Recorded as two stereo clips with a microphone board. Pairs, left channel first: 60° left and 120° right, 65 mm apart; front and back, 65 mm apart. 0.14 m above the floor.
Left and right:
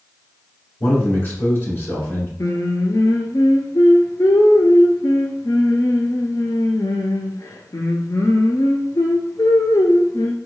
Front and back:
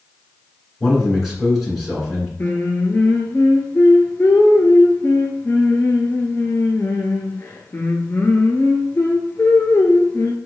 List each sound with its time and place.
0.8 s a man speaking: 85° left, 2 m
2.4 s singing: 50° left, 0.6 m